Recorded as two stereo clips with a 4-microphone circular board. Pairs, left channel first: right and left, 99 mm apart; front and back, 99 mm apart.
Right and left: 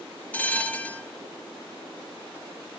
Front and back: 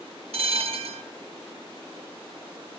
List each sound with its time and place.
0.3 s a bell: 165° right, 0.5 m